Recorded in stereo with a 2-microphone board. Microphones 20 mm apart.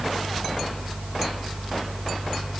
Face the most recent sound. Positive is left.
No sound to turn to.